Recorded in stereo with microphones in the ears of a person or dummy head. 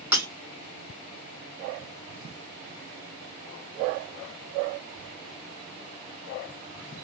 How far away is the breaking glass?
About 1.5 m.